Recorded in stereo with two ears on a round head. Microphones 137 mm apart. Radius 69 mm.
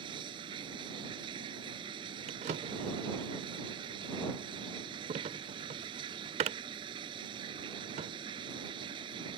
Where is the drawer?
45° right (ahead or behind).